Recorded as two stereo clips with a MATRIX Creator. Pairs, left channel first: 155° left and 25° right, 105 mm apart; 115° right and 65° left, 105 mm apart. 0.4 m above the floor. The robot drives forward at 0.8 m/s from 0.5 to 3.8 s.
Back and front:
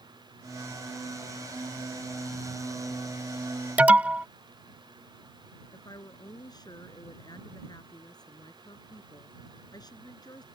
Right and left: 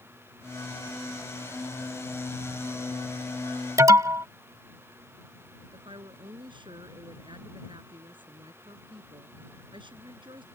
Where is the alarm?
45° left.